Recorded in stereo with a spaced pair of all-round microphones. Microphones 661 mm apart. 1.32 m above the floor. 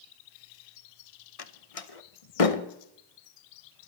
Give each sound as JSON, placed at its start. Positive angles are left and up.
{"t": 1.4, "sound": "a door slam", "side_deg": 55, "distance_m": 0.9}